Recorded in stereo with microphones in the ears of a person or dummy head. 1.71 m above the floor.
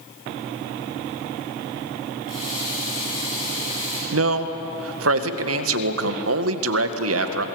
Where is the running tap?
45° left (ahead or behind), 9 m.